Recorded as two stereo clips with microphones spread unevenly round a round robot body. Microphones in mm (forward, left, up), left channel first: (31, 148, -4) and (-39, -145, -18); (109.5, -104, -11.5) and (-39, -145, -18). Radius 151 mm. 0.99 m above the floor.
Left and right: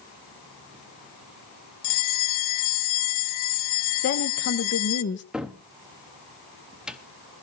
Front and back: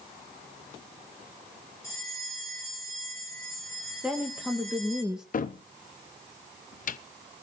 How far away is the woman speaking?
About 1.0 m.